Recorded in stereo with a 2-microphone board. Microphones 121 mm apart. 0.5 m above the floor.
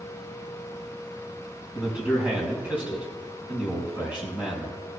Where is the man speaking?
10° right (ahead or behind), 4 m.